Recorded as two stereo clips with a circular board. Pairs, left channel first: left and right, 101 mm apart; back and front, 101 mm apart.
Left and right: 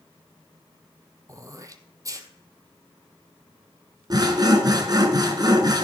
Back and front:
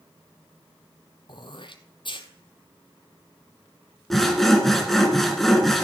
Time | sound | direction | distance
1.3 | throat clearing | 145° right | 0.9 m
4.1 | sawing | 95° right | 1.5 m